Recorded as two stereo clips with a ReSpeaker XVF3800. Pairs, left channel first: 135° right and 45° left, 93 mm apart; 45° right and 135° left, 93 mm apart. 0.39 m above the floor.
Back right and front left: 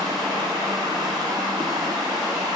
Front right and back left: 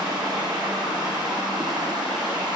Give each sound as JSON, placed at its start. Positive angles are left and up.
{"t": 0.0, "sound": "running water", "azimuth_deg": 90, "distance_m": 3.0}